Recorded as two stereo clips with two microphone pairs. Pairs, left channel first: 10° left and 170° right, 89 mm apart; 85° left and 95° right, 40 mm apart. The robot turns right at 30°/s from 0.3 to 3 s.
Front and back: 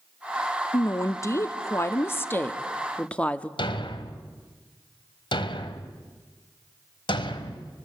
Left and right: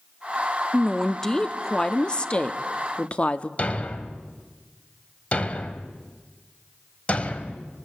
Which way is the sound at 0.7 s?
5° left.